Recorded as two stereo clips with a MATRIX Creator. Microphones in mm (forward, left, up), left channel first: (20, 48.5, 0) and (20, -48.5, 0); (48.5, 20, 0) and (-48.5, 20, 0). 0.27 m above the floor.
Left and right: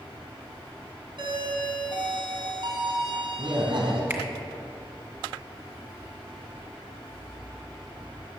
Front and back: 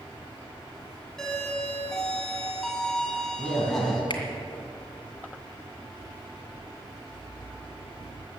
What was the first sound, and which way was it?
A doorbell, 85° right.